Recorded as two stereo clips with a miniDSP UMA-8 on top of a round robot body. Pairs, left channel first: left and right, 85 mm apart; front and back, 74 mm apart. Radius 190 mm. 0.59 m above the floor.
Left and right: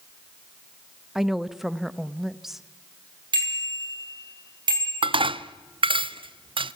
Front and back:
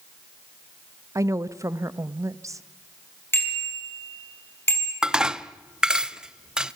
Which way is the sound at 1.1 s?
175° right.